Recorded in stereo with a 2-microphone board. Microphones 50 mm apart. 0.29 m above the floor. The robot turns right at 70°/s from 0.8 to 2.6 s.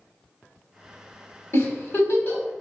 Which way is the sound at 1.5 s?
55° left (ahead or behind).